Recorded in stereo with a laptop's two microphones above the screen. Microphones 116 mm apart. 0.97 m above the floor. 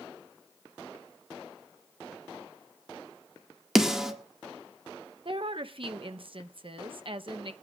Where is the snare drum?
5° right (ahead or behind), 1.8 m.